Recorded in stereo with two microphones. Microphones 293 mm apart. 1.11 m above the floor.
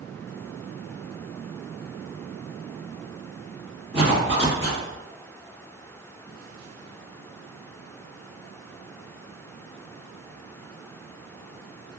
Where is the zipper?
40° right (ahead or behind), 1.3 m.